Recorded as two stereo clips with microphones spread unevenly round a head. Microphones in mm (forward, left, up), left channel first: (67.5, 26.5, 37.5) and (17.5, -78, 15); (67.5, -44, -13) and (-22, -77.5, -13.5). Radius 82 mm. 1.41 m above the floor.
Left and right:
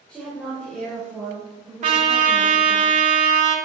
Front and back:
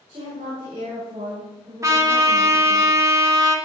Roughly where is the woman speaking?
Behind left.